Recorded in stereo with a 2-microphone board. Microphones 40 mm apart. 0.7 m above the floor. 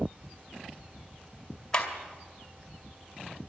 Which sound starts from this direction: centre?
A clap, at 1.7 s.